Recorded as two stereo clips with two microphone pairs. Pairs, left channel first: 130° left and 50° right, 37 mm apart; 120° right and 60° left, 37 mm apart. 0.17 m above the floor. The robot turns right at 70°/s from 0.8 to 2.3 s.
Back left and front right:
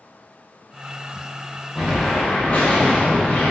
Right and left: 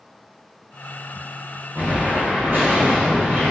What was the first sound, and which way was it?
An explosion, 35° left.